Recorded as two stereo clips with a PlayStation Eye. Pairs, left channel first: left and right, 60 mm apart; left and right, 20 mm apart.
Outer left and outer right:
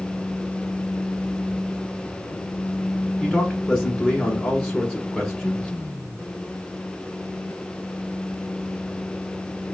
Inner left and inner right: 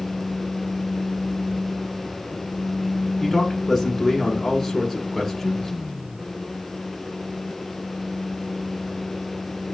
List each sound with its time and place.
3.2 s a man speaking: 15° left (ahead or behind), 1.3 m